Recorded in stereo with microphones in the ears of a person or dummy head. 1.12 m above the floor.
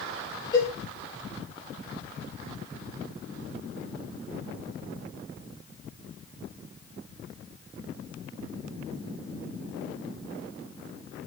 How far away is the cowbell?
About 4 m.